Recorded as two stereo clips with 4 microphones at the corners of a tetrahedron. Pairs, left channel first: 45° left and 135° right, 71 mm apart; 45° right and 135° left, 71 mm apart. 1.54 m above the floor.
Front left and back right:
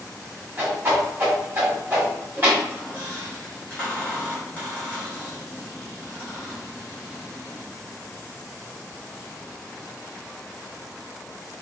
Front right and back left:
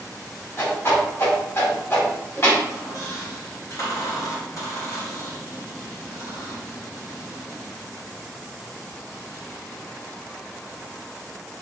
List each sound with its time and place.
0.6 s a whoosh: 80° right, 1.5 m
2.6 s a squeak: 25° right, 1.4 m